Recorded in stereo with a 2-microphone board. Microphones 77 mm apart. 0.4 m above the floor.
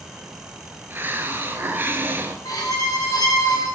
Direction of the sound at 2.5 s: 55° left (ahead or behind).